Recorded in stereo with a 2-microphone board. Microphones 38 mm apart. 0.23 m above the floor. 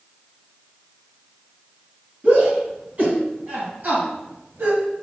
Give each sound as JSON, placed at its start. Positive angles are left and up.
{"t": 2.2, "sound": "a shout", "side_deg": -35, "distance_m": 2.5}